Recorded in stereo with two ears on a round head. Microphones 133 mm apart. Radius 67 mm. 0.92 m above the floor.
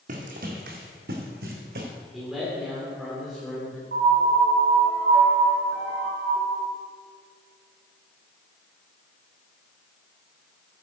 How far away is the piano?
About 2.5 m.